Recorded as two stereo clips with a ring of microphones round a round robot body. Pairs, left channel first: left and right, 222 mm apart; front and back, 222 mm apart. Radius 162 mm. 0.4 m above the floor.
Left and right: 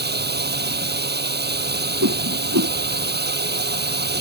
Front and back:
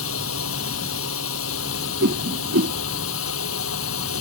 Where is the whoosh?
130° right.